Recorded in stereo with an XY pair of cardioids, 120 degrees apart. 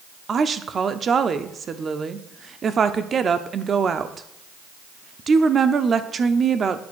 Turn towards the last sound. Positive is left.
turn(degrees=-35)